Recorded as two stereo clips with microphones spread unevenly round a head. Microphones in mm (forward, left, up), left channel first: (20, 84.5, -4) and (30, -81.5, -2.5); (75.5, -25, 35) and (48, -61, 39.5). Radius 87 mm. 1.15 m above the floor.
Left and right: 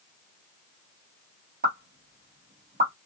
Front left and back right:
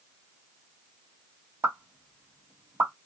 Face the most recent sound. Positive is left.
turn(degrees=-125)